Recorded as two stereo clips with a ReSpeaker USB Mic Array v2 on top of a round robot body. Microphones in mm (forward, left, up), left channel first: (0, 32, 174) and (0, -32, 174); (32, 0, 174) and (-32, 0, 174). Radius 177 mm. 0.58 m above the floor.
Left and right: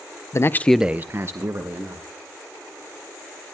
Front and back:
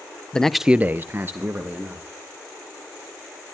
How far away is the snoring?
No snoring in this recording.